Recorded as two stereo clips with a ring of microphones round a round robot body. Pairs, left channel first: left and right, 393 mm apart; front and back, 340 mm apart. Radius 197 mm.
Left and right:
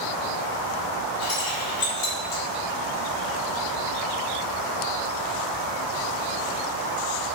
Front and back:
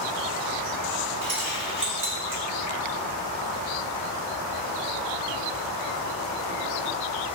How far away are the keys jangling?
About 1.1 m.